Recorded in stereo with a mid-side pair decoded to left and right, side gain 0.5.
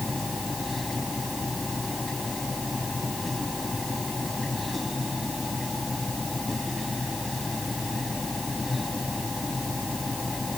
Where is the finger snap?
No finger snap in this recording.